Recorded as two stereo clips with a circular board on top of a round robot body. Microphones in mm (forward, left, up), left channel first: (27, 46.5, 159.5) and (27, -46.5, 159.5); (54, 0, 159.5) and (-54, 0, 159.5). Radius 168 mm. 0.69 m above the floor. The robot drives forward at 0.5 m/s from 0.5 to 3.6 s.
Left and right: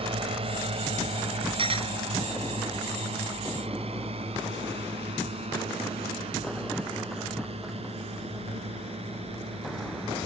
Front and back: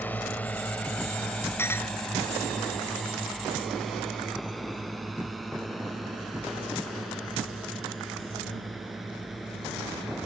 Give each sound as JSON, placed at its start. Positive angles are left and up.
{"t": 0.0, "sound": "a drone", "azimuth_deg": -75}
{"t": 1.6, "sound": "a clink", "azimuth_deg": -70}